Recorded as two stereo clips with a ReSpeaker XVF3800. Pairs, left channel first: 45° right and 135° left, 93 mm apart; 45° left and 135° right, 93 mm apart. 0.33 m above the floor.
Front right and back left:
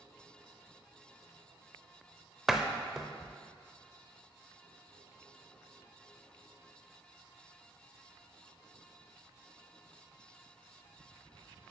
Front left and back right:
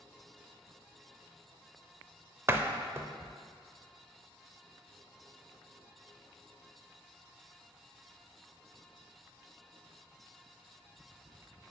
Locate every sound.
2.5 s a door slam: 140° right, 0.5 m